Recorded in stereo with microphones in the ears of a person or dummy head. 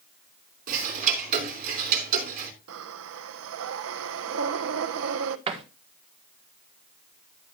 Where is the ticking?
45° right (ahead or behind), 3 m.